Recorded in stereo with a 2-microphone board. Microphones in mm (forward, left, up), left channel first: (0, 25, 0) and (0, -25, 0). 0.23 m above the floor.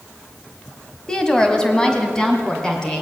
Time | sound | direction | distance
1.1 | a woman speaking | 15° left (ahead or behind) | 1.4 m